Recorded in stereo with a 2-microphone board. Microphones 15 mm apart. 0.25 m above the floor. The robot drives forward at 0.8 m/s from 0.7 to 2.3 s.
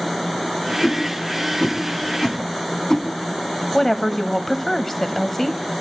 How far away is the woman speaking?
About 1.0 m.